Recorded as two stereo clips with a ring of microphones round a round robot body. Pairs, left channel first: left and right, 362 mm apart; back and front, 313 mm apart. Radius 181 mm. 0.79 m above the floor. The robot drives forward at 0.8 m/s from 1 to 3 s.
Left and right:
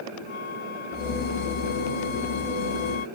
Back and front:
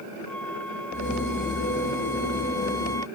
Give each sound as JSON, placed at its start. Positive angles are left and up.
{"t": 0.3, "sound": "a flute", "azimuth_deg": 95}